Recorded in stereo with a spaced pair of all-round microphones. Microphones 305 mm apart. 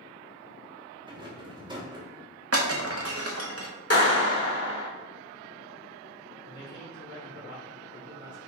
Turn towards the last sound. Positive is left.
turn(degrees=70)  # may be behind; listen again after turning